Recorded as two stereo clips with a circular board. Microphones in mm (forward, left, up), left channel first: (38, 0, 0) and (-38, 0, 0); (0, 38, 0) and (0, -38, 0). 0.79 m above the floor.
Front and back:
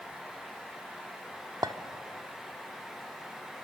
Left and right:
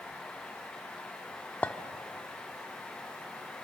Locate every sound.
1.6 s a clink: 155° left, 1.1 m